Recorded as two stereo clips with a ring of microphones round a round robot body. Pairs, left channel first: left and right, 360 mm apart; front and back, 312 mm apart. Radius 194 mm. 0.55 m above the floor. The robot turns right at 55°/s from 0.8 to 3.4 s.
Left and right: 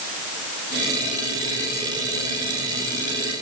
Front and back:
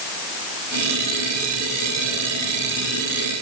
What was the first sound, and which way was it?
Only background noise.